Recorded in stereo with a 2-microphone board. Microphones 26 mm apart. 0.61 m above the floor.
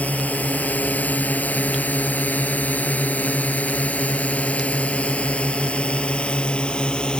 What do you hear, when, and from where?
0.0 s a drone: 70° left (ahead or behind); by 7.2 s 35° left (ahead or behind)